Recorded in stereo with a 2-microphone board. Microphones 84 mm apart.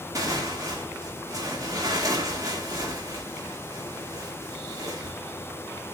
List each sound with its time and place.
0.1 s tearing paper: 45° right (ahead or behind), 1.6 m